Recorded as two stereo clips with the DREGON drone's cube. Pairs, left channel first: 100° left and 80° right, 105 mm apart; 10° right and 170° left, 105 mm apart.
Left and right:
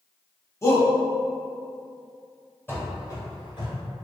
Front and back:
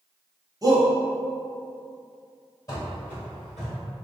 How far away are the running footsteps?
About 1.2 m.